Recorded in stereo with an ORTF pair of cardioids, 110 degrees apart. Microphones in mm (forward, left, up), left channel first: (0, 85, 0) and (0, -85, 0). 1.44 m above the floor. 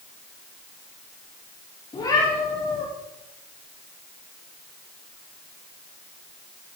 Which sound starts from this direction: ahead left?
A cat meowing, at 1.9 s.